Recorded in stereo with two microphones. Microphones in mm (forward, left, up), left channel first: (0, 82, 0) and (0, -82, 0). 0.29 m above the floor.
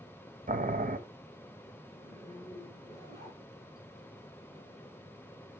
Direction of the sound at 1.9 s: 20° left (ahead or behind).